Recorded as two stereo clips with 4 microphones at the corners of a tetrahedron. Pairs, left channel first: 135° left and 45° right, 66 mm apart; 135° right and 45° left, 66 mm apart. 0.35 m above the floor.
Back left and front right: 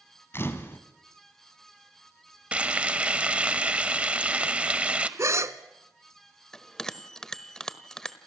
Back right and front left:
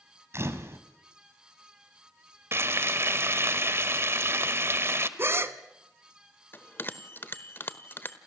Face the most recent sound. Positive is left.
turn(degrees=-155)